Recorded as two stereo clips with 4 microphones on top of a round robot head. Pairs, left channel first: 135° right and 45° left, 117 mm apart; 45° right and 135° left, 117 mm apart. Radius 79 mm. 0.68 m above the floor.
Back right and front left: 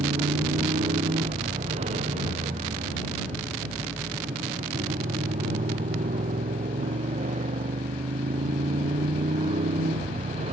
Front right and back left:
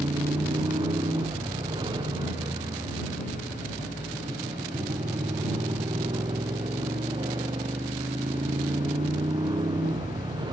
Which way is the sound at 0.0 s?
80° left.